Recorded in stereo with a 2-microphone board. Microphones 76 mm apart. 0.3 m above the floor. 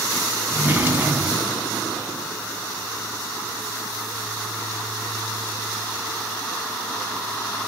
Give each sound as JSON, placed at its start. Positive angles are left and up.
{"t": 0.5, "sound": "a drawer", "side_deg": -25, "distance_m": 0.7}